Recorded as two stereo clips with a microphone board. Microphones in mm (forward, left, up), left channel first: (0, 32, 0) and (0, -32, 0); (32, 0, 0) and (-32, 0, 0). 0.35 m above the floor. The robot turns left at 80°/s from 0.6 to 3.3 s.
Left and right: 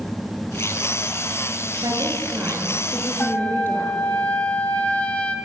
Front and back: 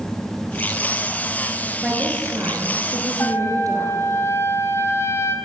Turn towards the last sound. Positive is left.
turn(degrees=25)